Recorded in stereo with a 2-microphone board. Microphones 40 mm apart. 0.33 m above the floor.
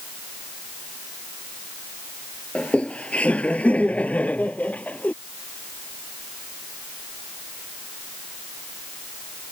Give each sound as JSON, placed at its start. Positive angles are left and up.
{"t": 2.5, "sound": "laughter", "side_deg": 30}